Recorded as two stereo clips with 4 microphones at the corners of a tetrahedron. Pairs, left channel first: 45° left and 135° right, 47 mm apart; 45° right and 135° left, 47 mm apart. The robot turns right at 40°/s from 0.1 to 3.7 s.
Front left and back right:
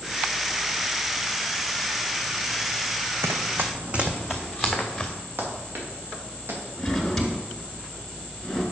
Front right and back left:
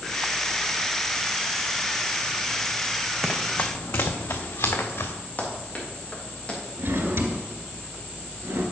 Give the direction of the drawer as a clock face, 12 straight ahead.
8 o'clock.